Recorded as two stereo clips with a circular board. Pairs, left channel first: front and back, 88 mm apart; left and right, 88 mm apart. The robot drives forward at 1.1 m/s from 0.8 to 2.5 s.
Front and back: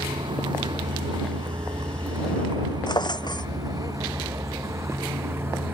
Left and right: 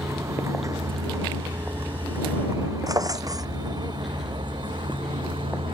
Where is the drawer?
40° right.